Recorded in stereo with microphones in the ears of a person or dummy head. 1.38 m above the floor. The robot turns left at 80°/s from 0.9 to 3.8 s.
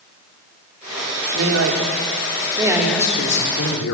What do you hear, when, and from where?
1.3 s a man speaking: 60° right, 3 m; by 3.9 s 105° left, 3 m